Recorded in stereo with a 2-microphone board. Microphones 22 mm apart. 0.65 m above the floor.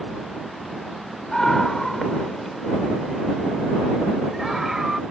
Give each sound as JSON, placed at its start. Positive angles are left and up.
{"t": 1.3, "sound": "a scream", "side_deg": 30}